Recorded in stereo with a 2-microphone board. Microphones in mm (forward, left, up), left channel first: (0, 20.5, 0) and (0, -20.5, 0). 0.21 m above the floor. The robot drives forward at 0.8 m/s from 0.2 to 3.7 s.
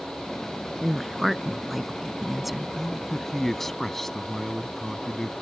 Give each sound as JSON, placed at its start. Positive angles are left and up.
{"t": 0.8, "sound": "a woman speaking", "side_deg": 0}
{"t": 2.8, "sound": "a man speaking", "side_deg": 5}